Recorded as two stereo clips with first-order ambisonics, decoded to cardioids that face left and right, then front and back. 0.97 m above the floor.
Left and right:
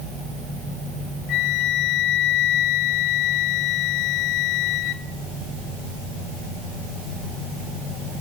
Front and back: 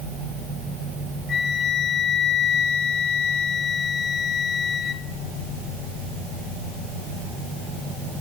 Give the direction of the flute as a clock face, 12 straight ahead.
10 o'clock.